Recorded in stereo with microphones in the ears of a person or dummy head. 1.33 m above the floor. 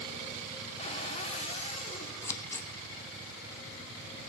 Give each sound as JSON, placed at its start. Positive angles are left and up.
{"t": 0.8, "sound": "a cupboard door", "side_deg": 30, "distance_m": 2.5}
{"t": 2.2, "sound": "scissors", "side_deg": 10, "distance_m": 0.8}